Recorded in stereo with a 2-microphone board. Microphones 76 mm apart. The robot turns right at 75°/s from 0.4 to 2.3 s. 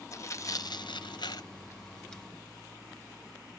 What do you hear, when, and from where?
0.1 s tearing paper: 40° left (ahead or behind), 0.6 m; by 2.2 s centre (ahead or behind), 0.6 m